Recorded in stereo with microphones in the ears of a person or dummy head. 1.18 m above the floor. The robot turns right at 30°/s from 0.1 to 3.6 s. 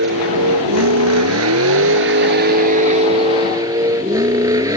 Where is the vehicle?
120° right; by 4.8 s 15° right.